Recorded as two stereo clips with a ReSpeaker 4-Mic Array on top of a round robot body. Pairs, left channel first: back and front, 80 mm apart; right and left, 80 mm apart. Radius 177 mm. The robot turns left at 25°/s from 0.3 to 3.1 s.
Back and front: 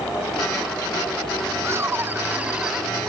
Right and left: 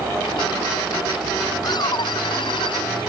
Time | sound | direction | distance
1.6 | laughter | 55° right | ?